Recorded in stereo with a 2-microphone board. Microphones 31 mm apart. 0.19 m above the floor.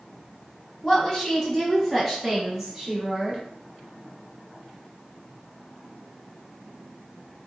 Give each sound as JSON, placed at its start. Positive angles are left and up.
{"t": 0.8, "sound": "a woman speaking", "side_deg": 20, "distance_m": 1.2}